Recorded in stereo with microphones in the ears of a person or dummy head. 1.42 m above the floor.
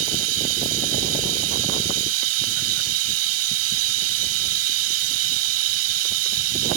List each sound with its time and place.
0.0 s running water: 90° right